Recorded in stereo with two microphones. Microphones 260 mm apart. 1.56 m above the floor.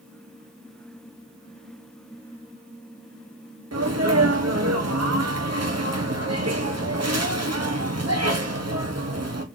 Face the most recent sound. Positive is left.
turn(degrees=-70)  # may be behind; listen again after turning